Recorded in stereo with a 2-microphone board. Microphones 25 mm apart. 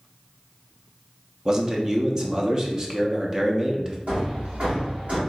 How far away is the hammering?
About 1.5 m.